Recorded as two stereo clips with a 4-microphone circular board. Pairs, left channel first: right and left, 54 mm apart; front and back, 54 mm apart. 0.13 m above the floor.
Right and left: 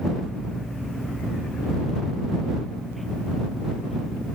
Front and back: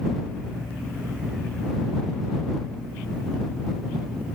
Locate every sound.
Only background noise.